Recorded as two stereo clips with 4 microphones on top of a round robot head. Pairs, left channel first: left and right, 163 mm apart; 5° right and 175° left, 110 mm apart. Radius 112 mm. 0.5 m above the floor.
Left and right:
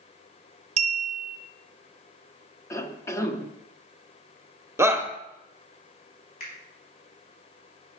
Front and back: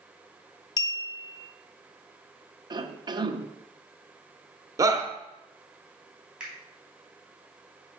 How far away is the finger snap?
About 4.5 m.